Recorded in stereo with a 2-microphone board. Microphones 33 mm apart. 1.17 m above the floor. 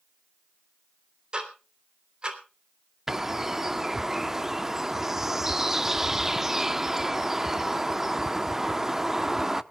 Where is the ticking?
30° right (ahead or behind), 3.5 m.